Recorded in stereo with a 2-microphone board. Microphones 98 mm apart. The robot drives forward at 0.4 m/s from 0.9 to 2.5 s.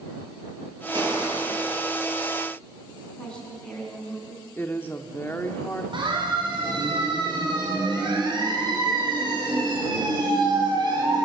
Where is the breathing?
I don't hear breathing.